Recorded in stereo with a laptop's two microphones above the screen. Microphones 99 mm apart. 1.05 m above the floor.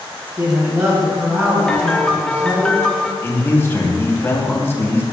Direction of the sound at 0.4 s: 35° right (ahead or behind).